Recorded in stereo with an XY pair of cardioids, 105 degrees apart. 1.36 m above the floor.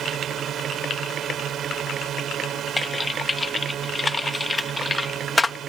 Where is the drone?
60° right.